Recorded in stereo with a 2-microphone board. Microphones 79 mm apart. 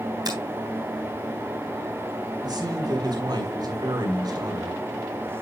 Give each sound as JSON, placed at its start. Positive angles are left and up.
{"t": 0.2, "sound": "a finger snap", "side_deg": -55, "distance_m": 3.5}
{"t": 2.4, "sound": "a man speaking", "side_deg": -60, "distance_m": 2.5}